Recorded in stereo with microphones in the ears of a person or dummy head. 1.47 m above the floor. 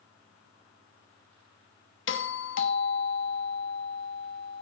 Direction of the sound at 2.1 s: 55° left (ahead or behind).